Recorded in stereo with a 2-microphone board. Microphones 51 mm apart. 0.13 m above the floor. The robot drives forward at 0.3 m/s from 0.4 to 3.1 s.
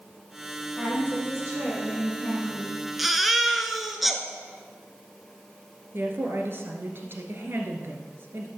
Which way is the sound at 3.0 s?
Centre (ahead or behind).